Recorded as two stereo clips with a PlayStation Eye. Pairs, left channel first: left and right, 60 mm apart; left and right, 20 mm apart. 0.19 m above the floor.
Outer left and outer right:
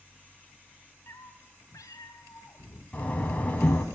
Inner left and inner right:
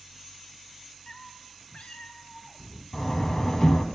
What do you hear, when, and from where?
1.1 s a cat meowing: 40° left (ahead or behind), 0.6 m; by 2.8 s 80° left, 1.8 m
2.9 s a door slam: 25° left (ahead or behind), 1.1 m